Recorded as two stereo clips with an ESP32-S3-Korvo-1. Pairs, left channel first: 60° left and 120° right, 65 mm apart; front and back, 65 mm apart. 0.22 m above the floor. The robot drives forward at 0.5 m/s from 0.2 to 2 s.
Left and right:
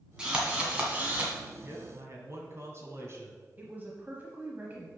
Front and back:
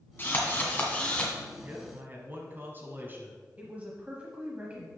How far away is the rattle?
No rattle in this recording.